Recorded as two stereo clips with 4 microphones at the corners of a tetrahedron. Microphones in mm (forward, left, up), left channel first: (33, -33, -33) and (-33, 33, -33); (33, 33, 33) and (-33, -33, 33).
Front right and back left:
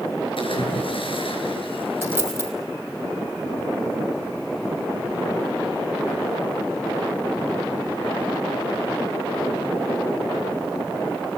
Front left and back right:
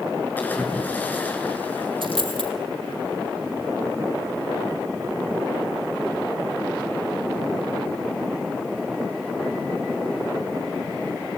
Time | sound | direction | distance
0.4 | a splash | 25° right | 5.5 m
2.0 | a dropped coin | 155° right | 5 m